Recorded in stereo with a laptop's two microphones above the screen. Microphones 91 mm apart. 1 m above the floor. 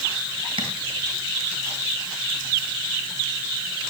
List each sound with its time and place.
0.6 s tapping: 75° right (ahead or behind), 3.5 m